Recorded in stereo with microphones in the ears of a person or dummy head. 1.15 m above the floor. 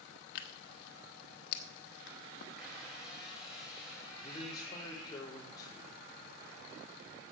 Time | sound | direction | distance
0.3 | tearing paper | 65° left (ahead or behind) | 1.2 m
2.6 | a squeak | centre (ahead or behind) | 5 m
4.2 | a man speaking | 25° left (ahead or behind) | 3 m